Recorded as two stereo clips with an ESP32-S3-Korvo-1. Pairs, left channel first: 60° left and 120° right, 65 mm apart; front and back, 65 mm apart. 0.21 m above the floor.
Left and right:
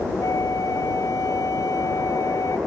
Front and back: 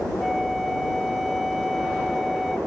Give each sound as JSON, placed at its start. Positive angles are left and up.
{"t": 0.2, "sound": "a flute", "azimuth_deg": 90}